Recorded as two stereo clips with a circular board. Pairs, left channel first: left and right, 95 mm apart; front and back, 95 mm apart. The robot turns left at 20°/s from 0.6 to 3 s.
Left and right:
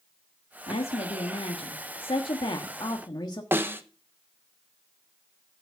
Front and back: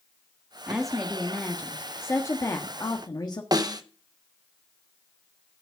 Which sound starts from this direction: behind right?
A snare drum, at 3.5 s.